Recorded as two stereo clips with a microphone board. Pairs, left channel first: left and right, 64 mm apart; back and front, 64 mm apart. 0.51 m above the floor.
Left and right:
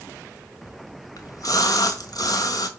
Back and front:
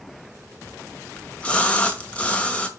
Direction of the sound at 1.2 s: 110° left.